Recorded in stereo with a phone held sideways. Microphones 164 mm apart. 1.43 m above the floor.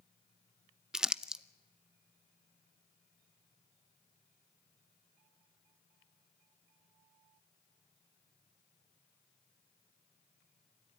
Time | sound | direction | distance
0.9 | crumpling | 5° right (ahead or behind) | 0.5 m